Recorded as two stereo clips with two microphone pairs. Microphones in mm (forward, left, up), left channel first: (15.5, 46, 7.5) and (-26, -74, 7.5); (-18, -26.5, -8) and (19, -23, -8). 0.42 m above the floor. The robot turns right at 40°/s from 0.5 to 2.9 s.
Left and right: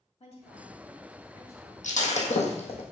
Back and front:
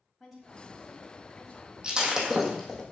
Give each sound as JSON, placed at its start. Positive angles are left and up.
{"t": 0.2, "sound": "a woman speaking", "azimuth_deg": 90, "distance_m": 2.5}
{"t": 1.8, "sound": "breaking glass", "azimuth_deg": 70, "distance_m": 1.5}